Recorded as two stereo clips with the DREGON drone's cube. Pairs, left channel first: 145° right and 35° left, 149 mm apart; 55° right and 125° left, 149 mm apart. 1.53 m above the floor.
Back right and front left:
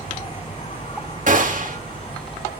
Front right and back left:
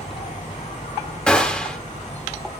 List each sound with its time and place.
0.0 s an insect: 95° right, 8 m
1.3 s a gunshot: 25° left, 2 m